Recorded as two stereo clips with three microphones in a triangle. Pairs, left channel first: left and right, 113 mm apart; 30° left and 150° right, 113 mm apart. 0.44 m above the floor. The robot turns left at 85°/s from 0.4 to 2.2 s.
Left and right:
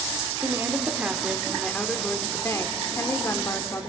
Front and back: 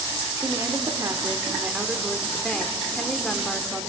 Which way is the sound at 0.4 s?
105° right.